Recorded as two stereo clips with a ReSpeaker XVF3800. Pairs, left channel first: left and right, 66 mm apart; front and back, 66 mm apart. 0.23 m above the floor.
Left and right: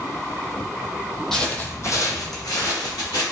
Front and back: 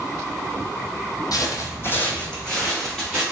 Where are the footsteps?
5° left, 0.5 m; by 3.2 s 95° left, 1.4 m.